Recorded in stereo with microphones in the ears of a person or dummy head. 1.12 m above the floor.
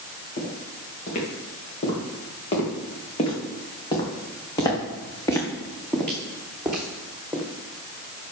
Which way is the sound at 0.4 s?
40° left (ahead or behind).